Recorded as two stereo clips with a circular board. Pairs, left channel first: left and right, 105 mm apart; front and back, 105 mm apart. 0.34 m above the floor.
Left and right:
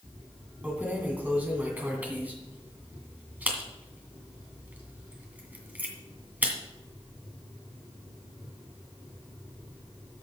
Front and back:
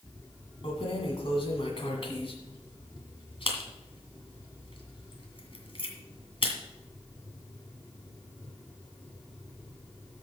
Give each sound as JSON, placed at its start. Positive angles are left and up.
{"t": 0.6, "sound": "keys jangling", "azimuth_deg": -20, "distance_m": 2.0}